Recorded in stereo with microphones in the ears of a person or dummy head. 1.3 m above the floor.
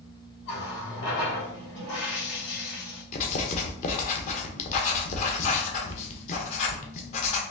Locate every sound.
0.5 s a running tap: 70° left (ahead or behind), 2 m
3.1 s writing: 40° left (ahead or behind), 0.8 m